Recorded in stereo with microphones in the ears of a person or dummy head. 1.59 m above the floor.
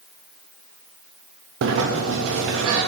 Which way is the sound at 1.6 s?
70° right (ahead or behind).